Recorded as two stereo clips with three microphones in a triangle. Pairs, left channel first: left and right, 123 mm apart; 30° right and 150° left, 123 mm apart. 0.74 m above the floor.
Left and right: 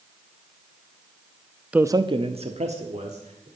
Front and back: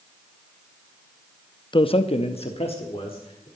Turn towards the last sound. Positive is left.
turn(degrees=-75)